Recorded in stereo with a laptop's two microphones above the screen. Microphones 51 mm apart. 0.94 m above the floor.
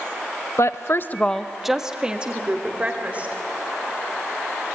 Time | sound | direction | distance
0.6 | a woman speaking | 65° left (ahead or behind) | 0.8 m